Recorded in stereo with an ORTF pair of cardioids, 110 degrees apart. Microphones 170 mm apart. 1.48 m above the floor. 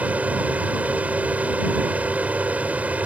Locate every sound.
0.0 s a fan: 10° right